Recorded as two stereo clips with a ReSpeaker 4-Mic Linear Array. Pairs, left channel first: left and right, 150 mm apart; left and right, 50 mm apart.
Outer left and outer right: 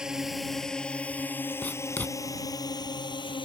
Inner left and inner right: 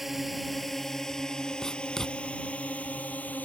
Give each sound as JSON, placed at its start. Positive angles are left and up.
{"t": 0.0, "sound": "a drone", "side_deg": -5}
{"t": 1.6, "sound": "writing", "side_deg": 10}